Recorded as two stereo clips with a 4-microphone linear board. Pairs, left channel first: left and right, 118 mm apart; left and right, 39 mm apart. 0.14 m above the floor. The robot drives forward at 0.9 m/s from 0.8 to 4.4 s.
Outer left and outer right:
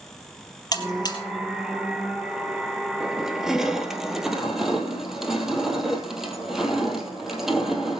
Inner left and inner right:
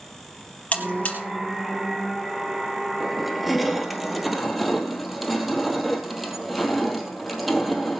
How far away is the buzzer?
About 3.5 m.